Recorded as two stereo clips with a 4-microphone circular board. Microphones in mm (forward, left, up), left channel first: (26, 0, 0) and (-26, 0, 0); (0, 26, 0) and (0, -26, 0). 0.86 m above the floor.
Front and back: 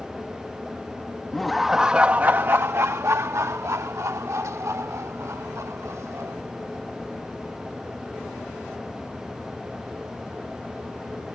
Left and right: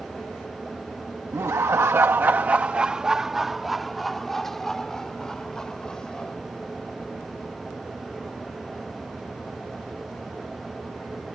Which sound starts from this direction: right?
Laughter, at 1.3 s.